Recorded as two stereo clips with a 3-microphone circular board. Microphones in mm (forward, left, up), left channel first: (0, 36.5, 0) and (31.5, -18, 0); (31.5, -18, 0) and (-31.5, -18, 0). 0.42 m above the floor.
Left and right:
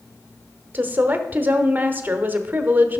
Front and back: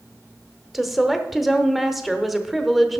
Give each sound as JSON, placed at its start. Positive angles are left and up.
{"t": 0.7, "sound": "a woman speaking", "azimuth_deg": -95, "distance_m": 0.9}